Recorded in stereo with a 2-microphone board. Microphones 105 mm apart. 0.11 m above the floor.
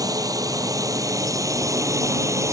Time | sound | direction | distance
0.0 | a drone | 35° right (ahead or behind) | ?